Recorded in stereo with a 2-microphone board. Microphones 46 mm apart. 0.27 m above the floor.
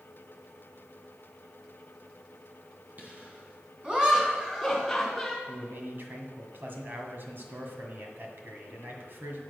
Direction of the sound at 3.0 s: 40° right (ahead or behind).